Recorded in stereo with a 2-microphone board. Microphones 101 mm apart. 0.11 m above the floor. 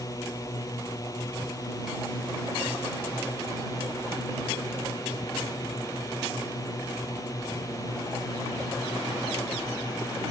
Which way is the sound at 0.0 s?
30° left (ahead or behind).